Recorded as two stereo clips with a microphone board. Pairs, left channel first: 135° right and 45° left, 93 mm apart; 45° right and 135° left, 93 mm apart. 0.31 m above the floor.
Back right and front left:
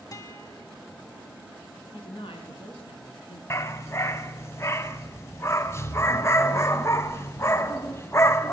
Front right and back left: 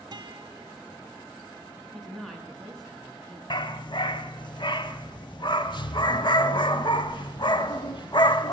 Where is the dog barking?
75° right, 0.6 m.